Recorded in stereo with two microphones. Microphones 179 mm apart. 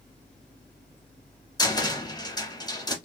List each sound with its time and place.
1.6 s a cupboard door: 20° left (ahead or behind), 0.8 m